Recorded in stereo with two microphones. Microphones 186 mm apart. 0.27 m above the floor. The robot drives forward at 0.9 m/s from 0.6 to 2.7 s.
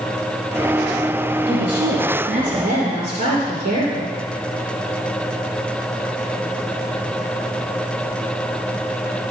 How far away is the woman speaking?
About 4 m.